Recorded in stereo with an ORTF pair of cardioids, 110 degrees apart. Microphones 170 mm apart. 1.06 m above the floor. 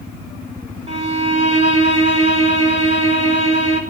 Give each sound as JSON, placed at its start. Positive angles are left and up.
{"t": 0.9, "sound": "a violin", "azimuth_deg": -35, "distance_m": 5.0}